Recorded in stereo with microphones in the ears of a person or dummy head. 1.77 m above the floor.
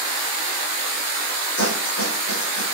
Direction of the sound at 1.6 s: 70° left (ahead or behind).